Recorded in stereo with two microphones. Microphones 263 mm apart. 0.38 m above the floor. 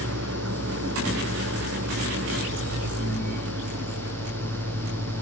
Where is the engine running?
90° right.